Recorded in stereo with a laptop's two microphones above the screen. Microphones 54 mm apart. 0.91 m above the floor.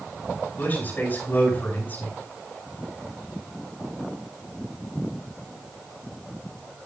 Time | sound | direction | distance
0.6 | a man speaking | 35° left (ahead or behind) | 6 m